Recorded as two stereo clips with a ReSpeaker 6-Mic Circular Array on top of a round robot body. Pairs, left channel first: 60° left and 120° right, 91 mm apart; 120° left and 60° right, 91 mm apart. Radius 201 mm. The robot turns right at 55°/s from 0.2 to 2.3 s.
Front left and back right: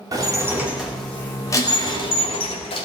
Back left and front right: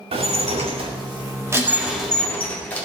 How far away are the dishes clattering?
About 2.5 m.